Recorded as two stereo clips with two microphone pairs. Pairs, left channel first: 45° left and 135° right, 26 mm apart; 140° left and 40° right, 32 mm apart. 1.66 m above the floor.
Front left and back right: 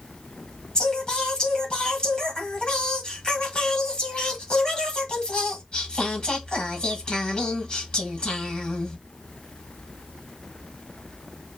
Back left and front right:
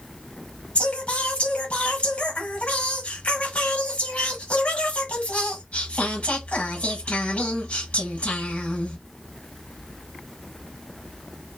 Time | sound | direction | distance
0.8 | singing | 95° left | 1.3 m